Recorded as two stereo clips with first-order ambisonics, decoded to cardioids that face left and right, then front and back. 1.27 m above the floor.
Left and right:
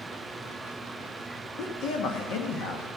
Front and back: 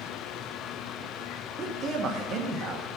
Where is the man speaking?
125° left, 1.5 m.